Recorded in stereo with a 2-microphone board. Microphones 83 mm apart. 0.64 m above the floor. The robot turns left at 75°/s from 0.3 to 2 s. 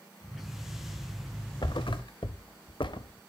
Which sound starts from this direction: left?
A thud, at 1.6 s.